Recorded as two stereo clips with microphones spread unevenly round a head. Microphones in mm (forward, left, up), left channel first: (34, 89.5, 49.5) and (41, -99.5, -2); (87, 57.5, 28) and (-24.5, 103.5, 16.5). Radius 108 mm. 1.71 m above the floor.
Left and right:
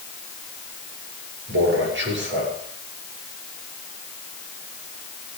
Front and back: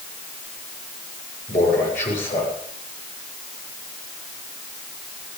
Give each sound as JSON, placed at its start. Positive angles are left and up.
{"t": 1.5, "sound": "a man speaking", "azimuth_deg": -65, "distance_m": 7.0}